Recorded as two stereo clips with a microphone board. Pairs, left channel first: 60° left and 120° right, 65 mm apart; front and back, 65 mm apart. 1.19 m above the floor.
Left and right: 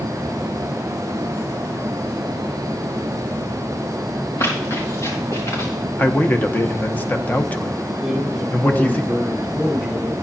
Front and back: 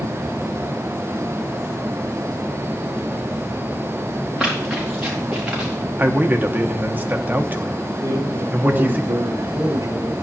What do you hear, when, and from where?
4.4 s running footsteps: 100° left, 4 m
6.0 s a man speaking: 120° left, 0.9 m
8.0 s a man speaking: 160° left, 6 m